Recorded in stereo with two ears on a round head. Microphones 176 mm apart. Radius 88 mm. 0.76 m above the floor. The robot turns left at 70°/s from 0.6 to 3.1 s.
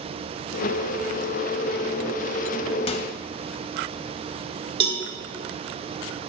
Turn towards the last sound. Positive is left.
turn(degrees=-30)  # may be behind; listen again after turning